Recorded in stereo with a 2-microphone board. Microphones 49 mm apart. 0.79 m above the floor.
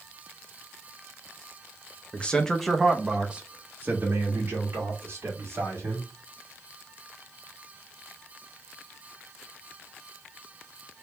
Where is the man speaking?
25° left (ahead or behind), 0.7 m; by 6.1 s 50° right (ahead or behind), 1.9 m.